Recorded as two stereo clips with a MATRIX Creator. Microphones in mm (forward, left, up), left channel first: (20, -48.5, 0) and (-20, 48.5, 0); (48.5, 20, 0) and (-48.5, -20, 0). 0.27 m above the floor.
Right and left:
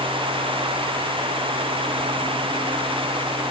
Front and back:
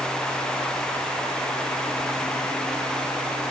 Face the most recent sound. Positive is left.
No sound to turn to.